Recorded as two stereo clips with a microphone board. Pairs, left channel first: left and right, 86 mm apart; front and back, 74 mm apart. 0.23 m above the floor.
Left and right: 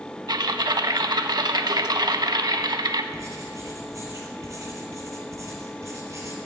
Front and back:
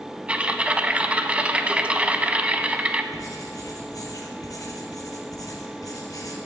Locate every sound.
0.3 s typing on a keyboard: 110° right, 0.6 m
3.1 s writing: 35° right, 2 m